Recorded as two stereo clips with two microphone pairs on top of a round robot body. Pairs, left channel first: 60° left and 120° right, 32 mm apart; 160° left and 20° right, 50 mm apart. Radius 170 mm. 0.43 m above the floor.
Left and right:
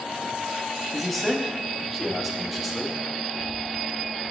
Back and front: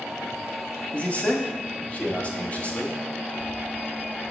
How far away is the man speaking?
About 1.3 m.